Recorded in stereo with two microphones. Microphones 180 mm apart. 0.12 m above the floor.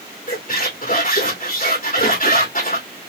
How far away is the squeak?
About 2.5 m.